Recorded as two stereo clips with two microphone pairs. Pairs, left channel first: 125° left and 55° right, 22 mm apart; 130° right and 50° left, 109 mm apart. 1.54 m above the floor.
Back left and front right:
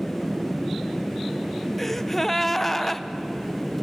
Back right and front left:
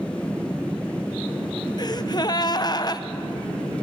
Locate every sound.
1.8 s a gasp: 150° right, 0.6 m